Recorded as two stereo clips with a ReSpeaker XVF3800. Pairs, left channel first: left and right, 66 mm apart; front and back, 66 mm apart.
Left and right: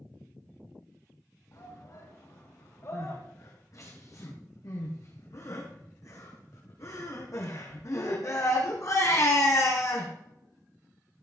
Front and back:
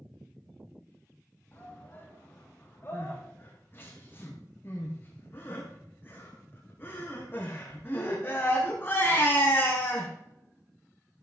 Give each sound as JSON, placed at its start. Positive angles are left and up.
{"t": 1.5, "sound": "a shout", "azimuth_deg": 60, "distance_m": 5.5}
{"t": 2.9, "sound": "crying", "azimuth_deg": 55, "distance_m": 4.5}